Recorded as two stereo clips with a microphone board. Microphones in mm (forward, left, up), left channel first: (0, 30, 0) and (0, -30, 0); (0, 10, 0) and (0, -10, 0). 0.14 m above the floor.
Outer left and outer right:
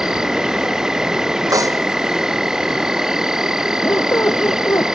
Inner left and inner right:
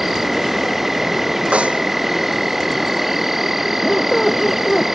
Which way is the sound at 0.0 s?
10° right (ahead or behind).